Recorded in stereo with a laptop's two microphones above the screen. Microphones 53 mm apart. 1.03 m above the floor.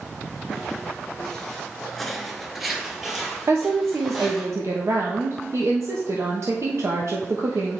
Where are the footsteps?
10° left (ahead or behind), 1.9 m; by 4.5 s 5° right (ahead or behind), 3 m.